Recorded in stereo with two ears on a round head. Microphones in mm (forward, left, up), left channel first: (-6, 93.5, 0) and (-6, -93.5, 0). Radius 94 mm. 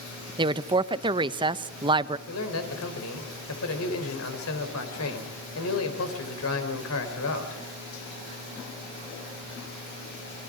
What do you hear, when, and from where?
0.4 s a woman speaking: 25° right (ahead or behind), 0.6 m
2.3 s a man speaking: 80° left, 4 m